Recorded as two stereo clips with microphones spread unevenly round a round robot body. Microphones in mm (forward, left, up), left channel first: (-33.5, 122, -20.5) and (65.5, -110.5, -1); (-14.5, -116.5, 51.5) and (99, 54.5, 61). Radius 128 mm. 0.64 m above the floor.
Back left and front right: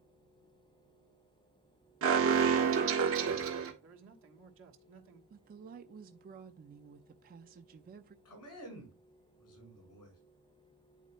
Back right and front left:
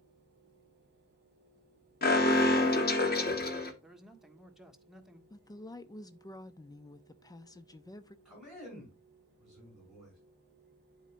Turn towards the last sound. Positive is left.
turn(degrees=145)